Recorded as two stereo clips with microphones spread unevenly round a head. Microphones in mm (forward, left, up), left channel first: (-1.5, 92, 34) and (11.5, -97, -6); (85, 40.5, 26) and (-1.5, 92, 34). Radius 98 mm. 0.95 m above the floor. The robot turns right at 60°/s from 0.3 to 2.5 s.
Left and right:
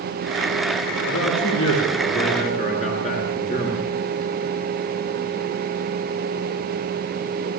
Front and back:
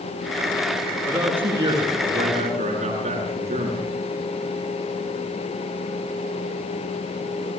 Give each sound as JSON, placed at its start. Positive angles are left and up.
{"t": 1.1, "sound": "a man speaking", "azimuth_deg": 60, "distance_m": 10.0}